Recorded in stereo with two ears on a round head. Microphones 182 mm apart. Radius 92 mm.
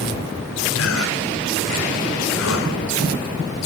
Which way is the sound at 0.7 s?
80° left.